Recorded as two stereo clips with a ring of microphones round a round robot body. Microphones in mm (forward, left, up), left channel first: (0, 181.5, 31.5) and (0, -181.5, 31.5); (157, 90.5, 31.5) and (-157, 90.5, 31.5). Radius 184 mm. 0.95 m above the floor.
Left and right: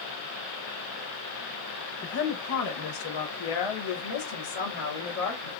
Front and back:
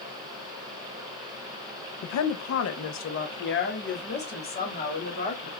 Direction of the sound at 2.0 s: 25° left.